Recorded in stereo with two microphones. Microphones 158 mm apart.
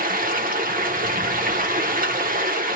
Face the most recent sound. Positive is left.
turn(degrees=-60)  # may be behind; listen again after turning